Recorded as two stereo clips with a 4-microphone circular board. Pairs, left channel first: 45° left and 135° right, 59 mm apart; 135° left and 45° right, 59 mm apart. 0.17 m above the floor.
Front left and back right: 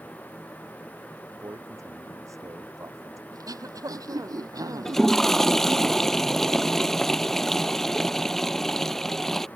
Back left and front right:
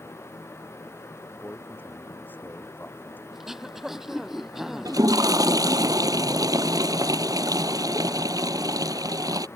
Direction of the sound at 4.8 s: 40° right.